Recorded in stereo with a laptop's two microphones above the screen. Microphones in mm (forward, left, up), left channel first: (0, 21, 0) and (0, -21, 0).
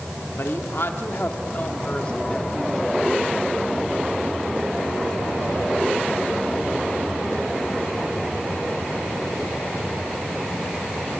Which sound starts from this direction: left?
A woman speaking, at 0.4 s.